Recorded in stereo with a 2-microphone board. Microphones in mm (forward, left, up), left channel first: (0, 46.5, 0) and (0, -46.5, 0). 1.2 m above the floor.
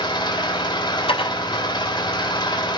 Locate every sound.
0.0 s an engine running: 55° left (ahead or behind), 3 m
1.1 s dishes clattering: 80° left, 3.5 m